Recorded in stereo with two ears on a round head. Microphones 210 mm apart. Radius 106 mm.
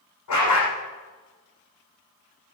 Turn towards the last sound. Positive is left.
turn(degrees=80)